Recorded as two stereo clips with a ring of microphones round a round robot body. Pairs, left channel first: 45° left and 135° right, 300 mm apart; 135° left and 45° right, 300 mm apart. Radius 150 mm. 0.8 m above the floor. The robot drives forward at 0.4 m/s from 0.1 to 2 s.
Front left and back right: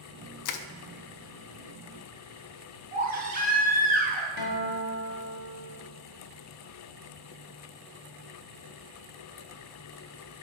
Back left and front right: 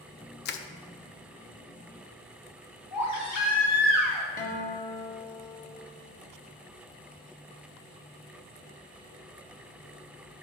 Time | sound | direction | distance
0.5 | crushing | 75° left | 0.5 m
2.9 | a baby crying | 160° left | 3 m
4.4 | a guitar | 70° left | 1.5 m